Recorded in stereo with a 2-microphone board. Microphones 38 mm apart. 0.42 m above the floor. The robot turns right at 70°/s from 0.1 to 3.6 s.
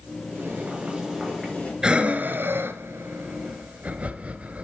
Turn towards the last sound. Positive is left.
turn(degrees=-40)  # may be behind; listen again after turning